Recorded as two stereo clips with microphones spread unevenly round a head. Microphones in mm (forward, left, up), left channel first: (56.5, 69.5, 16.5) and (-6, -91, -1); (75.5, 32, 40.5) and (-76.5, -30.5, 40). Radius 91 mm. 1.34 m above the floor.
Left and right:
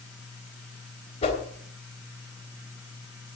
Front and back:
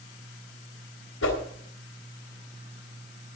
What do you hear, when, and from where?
1.2 s a whoosh: 20° left, 3.5 m